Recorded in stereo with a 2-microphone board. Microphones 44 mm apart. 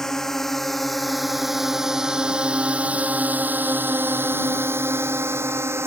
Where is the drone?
10° left (ahead or behind); by 5.9 s 75° right (ahead or behind).